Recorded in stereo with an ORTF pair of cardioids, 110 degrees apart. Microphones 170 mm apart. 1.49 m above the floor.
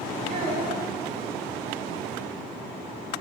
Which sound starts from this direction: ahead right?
A child speaking, at 0.3 s.